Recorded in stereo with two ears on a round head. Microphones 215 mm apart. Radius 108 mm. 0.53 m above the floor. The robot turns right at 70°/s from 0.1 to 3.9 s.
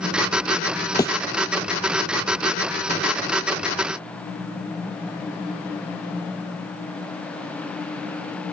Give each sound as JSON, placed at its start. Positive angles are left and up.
{"t": 1.0, "sound": "a thud", "side_deg": 15}